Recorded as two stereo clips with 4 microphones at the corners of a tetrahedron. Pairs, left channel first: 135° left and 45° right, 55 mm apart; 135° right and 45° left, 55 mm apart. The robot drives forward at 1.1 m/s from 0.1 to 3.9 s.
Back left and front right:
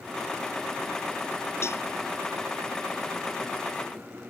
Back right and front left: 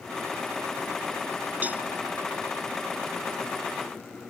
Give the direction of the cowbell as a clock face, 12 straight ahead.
9 o'clock.